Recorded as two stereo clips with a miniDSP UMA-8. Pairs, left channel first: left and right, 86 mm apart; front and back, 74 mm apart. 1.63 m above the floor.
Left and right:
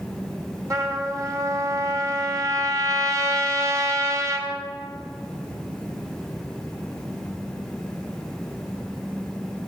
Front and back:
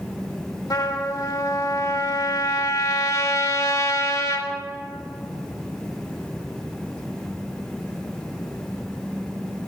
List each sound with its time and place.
0.7 s a trumpet: 40° right, 2.5 m